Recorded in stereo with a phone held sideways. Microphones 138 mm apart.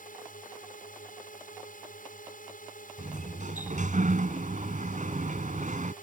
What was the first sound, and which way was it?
A drone, 75° left (ahead or behind).